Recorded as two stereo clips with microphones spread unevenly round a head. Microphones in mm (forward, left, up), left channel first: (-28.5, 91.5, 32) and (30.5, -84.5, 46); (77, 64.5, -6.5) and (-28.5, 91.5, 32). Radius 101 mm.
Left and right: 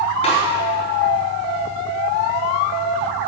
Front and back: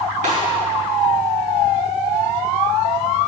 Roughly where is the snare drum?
Behind.